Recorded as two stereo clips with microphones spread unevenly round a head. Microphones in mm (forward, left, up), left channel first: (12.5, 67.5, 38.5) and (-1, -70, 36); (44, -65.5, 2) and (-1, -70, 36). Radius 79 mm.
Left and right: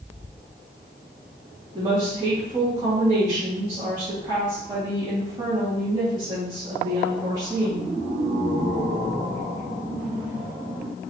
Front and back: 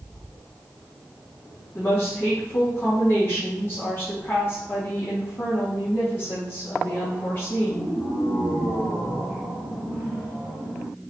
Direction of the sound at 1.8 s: 30° right.